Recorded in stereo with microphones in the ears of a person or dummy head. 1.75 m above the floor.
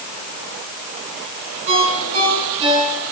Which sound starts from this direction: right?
A ringtone, at 1.7 s.